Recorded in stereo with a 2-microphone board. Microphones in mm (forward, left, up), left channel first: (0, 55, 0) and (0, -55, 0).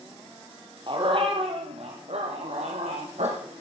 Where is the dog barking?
50° right (ahead or behind), 2.5 m; by 3.6 s 85° right, 4 m.